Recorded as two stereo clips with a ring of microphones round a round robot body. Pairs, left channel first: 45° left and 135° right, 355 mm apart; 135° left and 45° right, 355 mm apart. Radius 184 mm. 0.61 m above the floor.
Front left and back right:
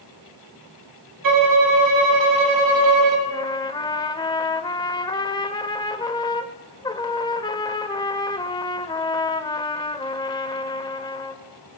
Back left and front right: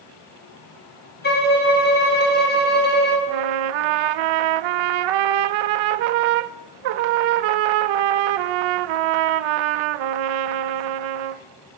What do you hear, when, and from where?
1.2 s a violin: 165° right, 2.5 m
3.3 s a trumpet: 35° right, 0.5 m